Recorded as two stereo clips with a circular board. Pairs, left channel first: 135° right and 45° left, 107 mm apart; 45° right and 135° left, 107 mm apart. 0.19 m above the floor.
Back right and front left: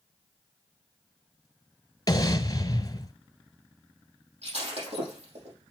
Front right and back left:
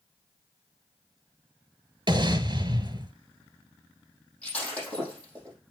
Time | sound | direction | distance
2.1 | an explosion | 175° left | 0.9 m
4.4 | breaking glass | 35° left | 5 m